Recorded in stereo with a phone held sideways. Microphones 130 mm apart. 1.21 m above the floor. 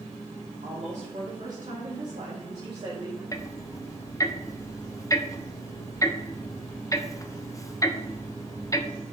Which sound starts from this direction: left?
Ticking, at 3.3 s.